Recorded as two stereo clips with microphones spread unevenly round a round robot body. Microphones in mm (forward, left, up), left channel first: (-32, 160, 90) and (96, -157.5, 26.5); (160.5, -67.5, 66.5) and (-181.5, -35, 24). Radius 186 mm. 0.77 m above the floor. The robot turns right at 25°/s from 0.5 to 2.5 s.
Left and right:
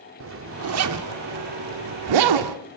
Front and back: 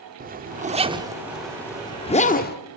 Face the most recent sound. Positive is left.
turn(degrees=-70)